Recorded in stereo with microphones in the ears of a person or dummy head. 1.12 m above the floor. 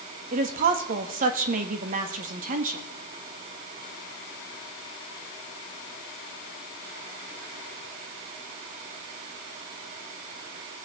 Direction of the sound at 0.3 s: 45° right (ahead or behind).